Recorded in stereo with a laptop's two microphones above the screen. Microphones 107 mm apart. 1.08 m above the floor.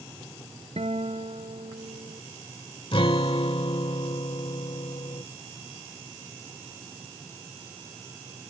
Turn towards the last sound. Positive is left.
turn(degrees=55)  # may be behind; listen again after turning